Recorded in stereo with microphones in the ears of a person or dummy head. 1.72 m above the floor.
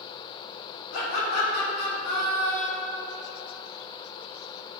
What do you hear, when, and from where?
0.9 s laughter: 65° left (ahead or behind), 1.8 m; by 3.0 s 20° left (ahead or behind), 1.4 m